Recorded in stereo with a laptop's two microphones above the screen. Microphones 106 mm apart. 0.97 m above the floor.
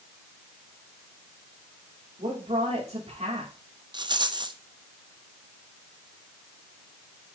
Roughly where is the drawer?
I don't hear a drawer.